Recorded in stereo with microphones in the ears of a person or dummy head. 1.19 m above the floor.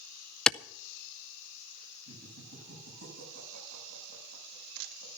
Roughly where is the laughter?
Right.